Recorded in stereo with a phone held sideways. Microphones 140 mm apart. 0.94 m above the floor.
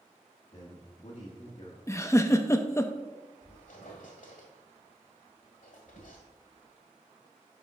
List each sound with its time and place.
0.5 s a man speaking: 50° left (ahead or behind), 1.3 m
1.9 s a giggle: 20° left (ahead or behind), 0.5 m
3.4 s a squeak: 75° left (ahead or behind), 1.6 m